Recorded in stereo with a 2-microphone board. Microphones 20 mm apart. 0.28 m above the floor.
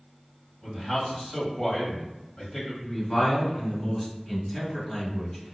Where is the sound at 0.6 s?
15° left (ahead or behind), 1.2 m.